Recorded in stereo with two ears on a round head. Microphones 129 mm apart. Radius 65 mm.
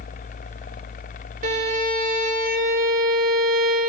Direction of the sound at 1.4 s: 60° right (ahead or behind).